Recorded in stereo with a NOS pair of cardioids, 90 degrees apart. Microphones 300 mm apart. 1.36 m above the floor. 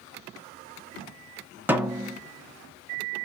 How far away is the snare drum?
About 0.9 m.